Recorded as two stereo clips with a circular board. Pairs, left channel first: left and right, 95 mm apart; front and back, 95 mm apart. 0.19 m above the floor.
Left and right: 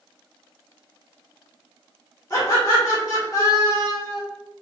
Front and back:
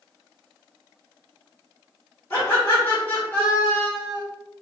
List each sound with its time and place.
2.3 s laughter: 60° left, 1.5 m